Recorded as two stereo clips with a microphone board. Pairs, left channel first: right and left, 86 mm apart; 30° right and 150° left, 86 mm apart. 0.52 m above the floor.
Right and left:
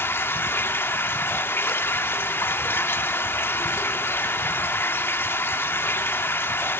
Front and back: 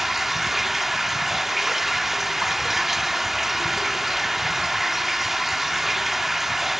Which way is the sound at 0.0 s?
125° right.